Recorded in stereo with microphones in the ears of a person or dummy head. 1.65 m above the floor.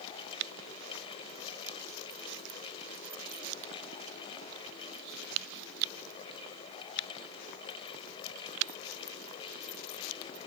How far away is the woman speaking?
I don't hear a woman speaking.